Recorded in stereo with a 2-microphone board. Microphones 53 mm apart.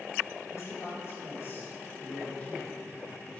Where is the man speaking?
60° left (ahead or behind), 3.5 m; by 3.4 s 20° left (ahead or behind), 3.5 m.